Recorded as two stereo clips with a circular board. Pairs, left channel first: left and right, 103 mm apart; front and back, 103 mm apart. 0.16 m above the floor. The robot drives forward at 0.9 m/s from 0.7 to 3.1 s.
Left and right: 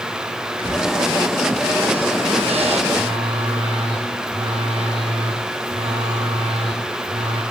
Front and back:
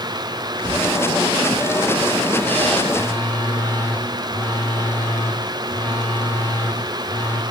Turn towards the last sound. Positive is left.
turn(degrees=-70)